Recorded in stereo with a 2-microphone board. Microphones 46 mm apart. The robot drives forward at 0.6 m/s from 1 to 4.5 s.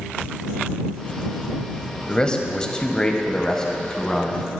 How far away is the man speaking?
About 0.9 m.